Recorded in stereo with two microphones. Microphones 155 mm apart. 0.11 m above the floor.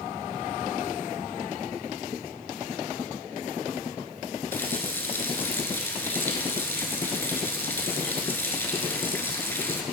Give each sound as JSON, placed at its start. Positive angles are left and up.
{"t": 4.5, "sound": "a running tap", "side_deg": 15, "distance_m": 1.0}